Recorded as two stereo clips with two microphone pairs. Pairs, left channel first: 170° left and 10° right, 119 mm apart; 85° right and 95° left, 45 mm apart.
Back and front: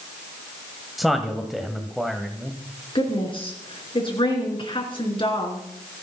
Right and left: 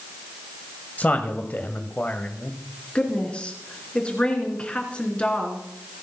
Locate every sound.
1.0 s a man speaking: 100° right, 1.5 m
3.0 s a woman speaking: 150° right, 4 m